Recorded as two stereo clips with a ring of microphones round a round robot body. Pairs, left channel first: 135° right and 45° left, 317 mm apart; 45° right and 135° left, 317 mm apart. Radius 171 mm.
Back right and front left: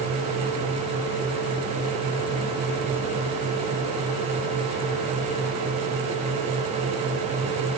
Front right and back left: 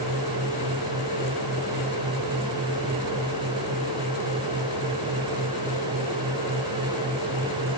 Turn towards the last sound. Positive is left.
No sound to turn to.